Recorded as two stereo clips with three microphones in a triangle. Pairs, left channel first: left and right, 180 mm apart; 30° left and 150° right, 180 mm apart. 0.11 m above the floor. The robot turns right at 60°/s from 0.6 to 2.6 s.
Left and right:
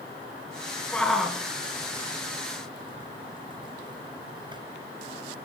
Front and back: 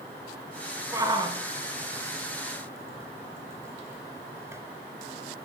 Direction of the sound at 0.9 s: 165° left.